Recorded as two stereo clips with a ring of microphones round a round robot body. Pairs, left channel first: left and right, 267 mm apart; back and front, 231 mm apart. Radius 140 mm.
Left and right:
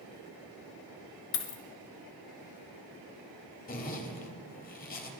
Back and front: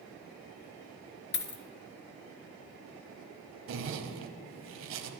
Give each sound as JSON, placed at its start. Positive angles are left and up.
{"t": 1.3, "sound": "a dropped coin", "azimuth_deg": 135, "distance_m": 1.0}
{"t": 3.7, "sound": "a zipper", "azimuth_deg": 30, "distance_m": 1.2}